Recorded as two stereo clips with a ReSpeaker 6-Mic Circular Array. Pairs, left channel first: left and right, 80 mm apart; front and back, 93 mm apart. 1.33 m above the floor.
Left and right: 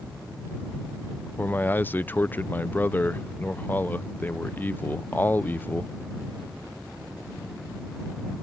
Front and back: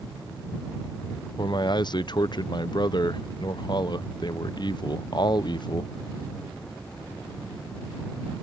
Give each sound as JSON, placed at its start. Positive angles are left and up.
{"t": 1.4, "sound": "a man speaking", "azimuth_deg": 25}